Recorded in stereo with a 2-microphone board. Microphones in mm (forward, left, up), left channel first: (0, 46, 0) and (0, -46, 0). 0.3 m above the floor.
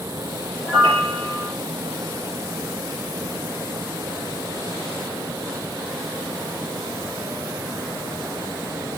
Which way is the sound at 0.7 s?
65° right (ahead or behind).